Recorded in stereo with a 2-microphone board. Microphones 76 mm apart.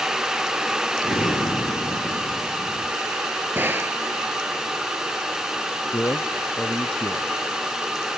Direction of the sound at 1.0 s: 80° left.